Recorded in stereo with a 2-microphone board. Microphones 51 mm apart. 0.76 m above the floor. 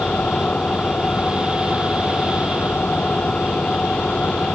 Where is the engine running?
25° left (ahead or behind).